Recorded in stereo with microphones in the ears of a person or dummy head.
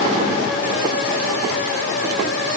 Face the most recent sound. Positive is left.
No sound to turn to.